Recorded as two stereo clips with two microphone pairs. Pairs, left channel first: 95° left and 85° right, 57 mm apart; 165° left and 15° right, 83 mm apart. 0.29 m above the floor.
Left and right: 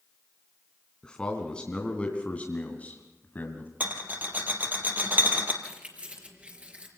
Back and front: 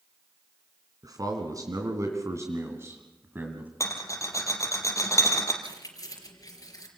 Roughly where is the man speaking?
Ahead.